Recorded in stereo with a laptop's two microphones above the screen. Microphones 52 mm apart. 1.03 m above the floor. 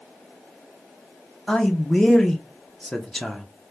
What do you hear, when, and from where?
1.5 s a man speaking: 10° left (ahead or behind), 0.6 m